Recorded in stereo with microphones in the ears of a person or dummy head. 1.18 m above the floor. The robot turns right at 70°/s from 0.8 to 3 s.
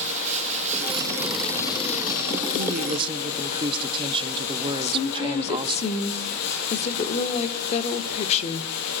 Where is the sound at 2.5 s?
60° right, 1.8 m; by 5.8 s 30° right, 1.8 m.